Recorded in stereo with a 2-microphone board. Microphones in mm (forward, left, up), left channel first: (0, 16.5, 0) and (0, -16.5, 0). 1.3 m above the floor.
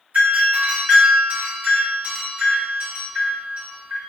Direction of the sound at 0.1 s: 55° right (ahead or behind).